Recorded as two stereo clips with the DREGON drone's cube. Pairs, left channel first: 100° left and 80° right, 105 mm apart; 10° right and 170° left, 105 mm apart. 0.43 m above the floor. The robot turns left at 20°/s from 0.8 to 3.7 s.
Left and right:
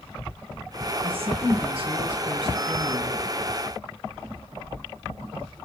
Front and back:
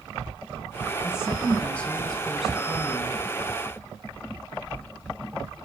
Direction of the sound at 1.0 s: 75° right.